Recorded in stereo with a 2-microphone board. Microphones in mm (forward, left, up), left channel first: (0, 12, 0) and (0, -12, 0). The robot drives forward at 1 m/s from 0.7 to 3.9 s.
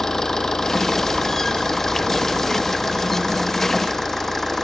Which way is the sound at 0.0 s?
25° left (ahead or behind).